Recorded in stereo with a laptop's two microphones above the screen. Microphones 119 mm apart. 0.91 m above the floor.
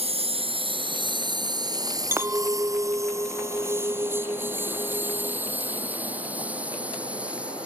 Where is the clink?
20° right (ahead or behind).